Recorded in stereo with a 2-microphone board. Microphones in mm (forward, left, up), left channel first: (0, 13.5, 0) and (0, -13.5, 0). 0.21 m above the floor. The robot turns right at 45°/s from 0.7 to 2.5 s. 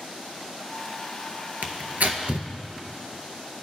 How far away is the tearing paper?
About 0.6 m.